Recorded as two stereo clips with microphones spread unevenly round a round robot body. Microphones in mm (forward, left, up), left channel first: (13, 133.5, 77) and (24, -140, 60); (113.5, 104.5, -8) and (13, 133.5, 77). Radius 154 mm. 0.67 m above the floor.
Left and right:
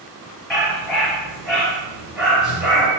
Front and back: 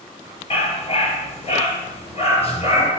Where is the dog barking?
Straight ahead, 4.5 m.